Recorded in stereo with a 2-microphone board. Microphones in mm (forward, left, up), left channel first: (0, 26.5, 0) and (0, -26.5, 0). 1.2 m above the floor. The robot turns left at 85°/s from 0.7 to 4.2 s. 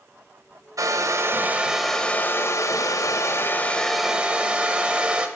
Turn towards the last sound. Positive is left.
turn(degrees=-25)